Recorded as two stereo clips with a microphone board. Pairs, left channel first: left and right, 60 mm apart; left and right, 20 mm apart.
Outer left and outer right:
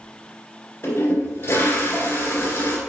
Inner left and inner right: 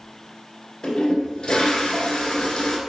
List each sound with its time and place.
0.8 s a toilet flushing: 45° left (ahead or behind), 1.9 m